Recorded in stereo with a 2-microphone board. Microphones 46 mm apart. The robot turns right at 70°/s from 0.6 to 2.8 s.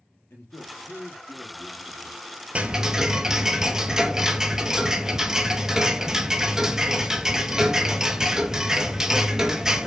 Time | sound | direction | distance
0.3 | a man speaking | 115° left | 3.5 m
2.5 | ticking | 25° right (ahead or behind) | 0.5 m